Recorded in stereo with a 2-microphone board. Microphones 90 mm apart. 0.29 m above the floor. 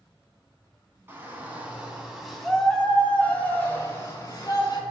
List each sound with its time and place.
1.1 s a shout: 25° right (ahead or behind), 3 m; by 4.8 s 45° left (ahead or behind), 3 m